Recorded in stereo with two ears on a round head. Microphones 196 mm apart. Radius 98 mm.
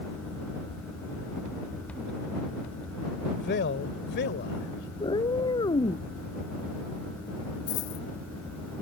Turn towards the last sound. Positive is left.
turn(degrees=60)  # may be behind; listen again after turning